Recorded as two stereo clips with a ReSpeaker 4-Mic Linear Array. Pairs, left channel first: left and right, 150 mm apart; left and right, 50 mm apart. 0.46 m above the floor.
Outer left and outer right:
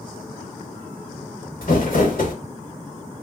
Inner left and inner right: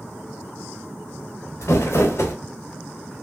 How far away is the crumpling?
About 1.1 m.